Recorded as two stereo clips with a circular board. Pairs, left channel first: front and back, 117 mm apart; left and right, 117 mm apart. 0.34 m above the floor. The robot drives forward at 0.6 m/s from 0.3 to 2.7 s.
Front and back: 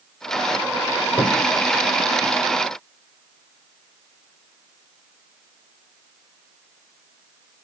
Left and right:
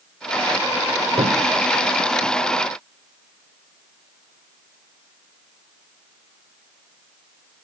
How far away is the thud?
About 1.5 m.